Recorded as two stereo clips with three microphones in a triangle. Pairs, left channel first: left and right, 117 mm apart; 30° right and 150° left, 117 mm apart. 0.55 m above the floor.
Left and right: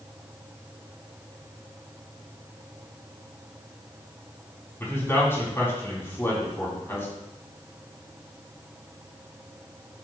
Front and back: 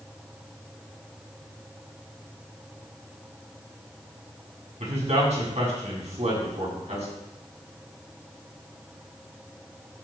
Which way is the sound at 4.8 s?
160° left.